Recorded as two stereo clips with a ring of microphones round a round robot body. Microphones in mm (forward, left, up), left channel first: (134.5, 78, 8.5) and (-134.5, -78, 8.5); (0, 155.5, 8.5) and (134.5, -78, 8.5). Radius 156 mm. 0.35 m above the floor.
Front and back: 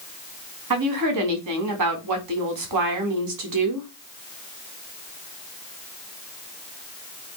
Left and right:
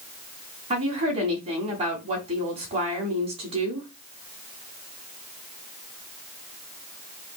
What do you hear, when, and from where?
0.7 s a woman speaking: 130° right, 3.5 m